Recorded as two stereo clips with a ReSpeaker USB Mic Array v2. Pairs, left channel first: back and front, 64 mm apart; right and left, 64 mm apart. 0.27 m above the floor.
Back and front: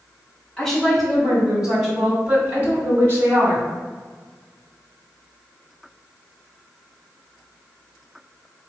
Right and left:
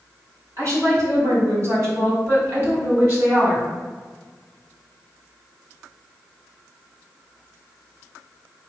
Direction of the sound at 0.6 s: 95° left.